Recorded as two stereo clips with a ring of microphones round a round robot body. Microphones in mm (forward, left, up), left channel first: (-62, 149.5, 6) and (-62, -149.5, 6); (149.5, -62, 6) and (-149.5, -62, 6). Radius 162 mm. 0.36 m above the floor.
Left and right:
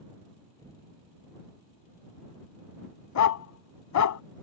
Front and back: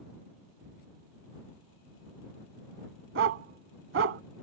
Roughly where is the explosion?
Behind.